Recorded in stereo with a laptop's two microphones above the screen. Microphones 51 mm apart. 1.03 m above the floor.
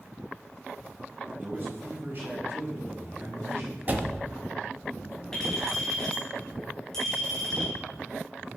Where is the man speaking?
35° right (ahead or behind), 5 m; by 3.8 s 55° right (ahead or behind), 5 m.